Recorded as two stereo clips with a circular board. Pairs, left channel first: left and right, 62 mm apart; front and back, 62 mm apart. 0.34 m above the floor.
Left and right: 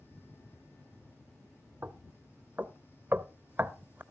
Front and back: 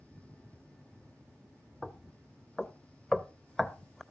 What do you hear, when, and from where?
1.8 s knocking: 80° right, 0.6 m